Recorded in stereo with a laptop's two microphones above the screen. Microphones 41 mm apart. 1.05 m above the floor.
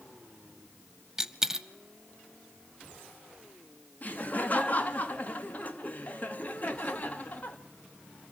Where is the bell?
I don't hear a bell.